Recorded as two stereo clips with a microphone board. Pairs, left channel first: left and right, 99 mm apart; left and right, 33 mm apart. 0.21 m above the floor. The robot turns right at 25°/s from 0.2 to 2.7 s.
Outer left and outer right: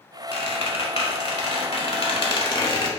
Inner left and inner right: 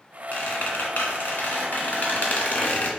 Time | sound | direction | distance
0.3 | a squeak | 70° left | 0.7 m